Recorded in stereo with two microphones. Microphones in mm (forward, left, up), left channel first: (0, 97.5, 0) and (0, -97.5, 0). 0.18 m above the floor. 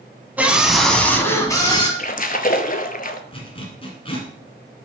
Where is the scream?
10° right (ahead or behind), 1.0 m; by 1.9 s 25° left (ahead or behind), 1.1 m.